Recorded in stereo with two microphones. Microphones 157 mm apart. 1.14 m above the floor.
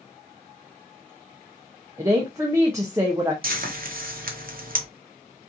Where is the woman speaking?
20° right (ahead or behind), 0.5 m.